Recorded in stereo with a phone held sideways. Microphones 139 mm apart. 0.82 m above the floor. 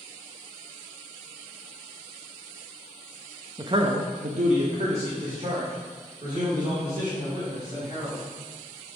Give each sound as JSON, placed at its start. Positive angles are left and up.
{"t": 3.6, "sound": "a man speaking", "side_deg": -30, "distance_m": 0.6}